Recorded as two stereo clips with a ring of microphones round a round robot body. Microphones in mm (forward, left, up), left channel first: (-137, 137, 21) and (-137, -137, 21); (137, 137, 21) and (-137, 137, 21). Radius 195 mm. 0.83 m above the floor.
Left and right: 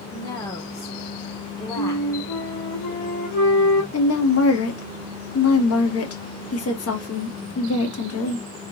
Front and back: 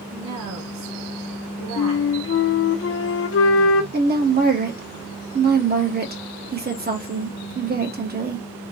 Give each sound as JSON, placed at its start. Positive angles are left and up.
{"t": 0.1, "sound": "a woman speaking", "azimuth_deg": 165, "distance_m": 1.2}
{"t": 1.8, "sound": "a flute", "azimuth_deg": 45, "distance_m": 0.7}
{"t": 3.9, "sound": "a woman speaking", "azimuth_deg": 125, "distance_m": 1.5}